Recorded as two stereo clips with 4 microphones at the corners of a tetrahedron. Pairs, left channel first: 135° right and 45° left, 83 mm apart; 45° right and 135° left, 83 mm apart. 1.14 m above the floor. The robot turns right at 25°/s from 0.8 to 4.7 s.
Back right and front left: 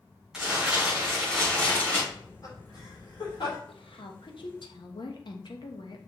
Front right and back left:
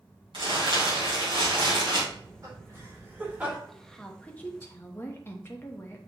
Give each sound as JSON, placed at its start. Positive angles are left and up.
{"t": 0.3, "sound": "crumpling", "azimuth_deg": 125, "distance_m": 4.5}
{"t": 2.1, "sound": "laughter", "azimuth_deg": 175, "distance_m": 3.5}
{"t": 3.7, "sound": "a woman speaking", "azimuth_deg": -135, "distance_m": 1.1}